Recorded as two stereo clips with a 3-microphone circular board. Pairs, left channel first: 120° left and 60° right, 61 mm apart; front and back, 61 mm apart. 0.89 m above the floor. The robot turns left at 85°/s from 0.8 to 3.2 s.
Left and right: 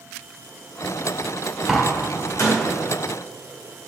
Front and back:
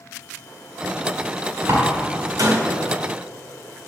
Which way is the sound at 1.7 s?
140° right.